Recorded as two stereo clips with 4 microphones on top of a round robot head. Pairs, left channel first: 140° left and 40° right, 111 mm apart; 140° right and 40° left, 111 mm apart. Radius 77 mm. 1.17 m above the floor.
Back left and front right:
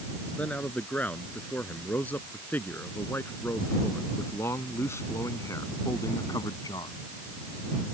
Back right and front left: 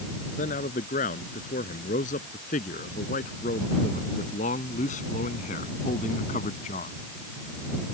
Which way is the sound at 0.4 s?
145° right.